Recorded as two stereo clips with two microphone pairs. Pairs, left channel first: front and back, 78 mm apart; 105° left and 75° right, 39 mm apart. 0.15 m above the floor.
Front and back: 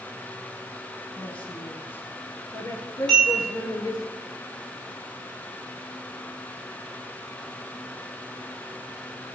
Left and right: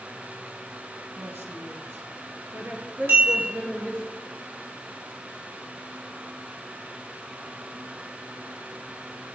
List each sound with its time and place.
1.2 s a woman speaking: 75° right, 3.5 m; by 4.1 s 20° right, 3.5 m
3.1 s a bell: 75° right, 6 m